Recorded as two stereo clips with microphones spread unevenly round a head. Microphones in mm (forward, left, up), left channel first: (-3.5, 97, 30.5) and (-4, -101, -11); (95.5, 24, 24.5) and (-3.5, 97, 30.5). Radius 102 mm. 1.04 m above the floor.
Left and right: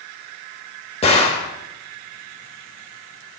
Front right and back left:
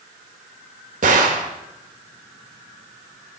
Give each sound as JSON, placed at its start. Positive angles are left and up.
{"t": 1.0, "sound": "a gunshot", "azimuth_deg": 145, "distance_m": 1.5}